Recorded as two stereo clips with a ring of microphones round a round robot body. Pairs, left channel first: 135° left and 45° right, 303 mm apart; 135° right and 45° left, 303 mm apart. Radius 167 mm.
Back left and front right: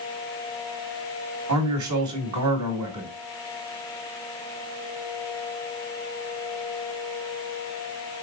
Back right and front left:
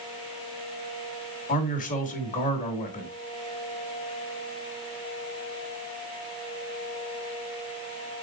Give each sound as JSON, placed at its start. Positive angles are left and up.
{"t": 1.5, "sound": "a man speaking", "azimuth_deg": -70, "distance_m": 1.9}